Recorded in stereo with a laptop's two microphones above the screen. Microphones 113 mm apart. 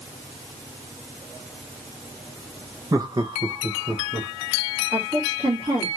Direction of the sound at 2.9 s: 35° right (ahead or behind).